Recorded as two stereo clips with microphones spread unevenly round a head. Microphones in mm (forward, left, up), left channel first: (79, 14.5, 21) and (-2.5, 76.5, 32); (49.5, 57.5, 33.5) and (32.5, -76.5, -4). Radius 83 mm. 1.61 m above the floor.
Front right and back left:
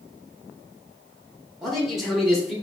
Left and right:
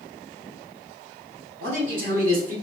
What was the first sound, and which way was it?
A man speaking, 125° right.